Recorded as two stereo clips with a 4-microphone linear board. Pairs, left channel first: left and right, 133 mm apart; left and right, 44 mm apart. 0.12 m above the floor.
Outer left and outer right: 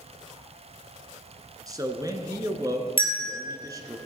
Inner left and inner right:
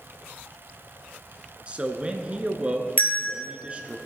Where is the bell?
40° left (ahead or behind), 2.5 m.